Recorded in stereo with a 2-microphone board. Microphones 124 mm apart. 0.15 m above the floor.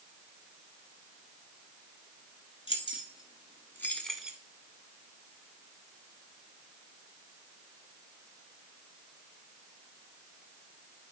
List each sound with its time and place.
2.7 s keys jangling: 45° left (ahead or behind), 1.6 m; by 4.4 s 10° right (ahead or behind), 1.0 m